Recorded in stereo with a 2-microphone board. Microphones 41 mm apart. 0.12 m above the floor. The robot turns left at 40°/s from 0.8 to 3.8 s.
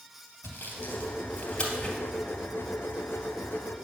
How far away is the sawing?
About 2.5 m.